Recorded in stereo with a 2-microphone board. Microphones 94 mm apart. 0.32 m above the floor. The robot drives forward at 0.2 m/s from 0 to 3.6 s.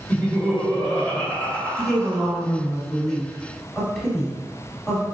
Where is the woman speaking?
5° left (ahead or behind), 1.2 m.